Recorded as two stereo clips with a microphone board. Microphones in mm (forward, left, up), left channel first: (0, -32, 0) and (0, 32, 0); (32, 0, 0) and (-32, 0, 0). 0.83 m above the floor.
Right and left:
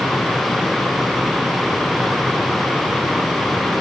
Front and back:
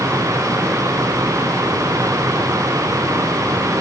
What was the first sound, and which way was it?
Only background noise.